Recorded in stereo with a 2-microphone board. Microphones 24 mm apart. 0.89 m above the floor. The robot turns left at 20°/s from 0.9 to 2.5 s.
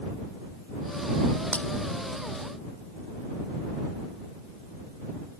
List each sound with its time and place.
1.5 s breaking glass: 80° left; by 1.6 s 75° left (ahead or behind)